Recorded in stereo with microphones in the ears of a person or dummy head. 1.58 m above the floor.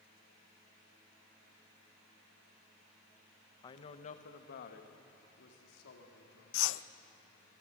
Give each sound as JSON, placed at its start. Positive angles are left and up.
{"t": 3.6, "sound": "a woman speaking", "side_deg": 25, "distance_m": 1.1}
{"t": 6.5, "sound": "a whoosh", "side_deg": 65, "distance_m": 0.6}